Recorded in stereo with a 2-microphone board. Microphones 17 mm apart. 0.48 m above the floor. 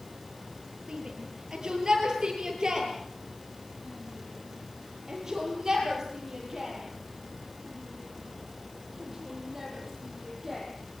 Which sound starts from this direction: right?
A shout, at 0.9 s.